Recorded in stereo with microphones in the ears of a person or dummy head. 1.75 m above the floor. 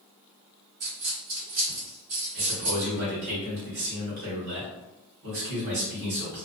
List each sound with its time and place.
0.8 s a dropped coin: 40° right (ahead or behind), 1.6 m
2.3 s a man speaking: 55° right (ahead or behind), 1.3 m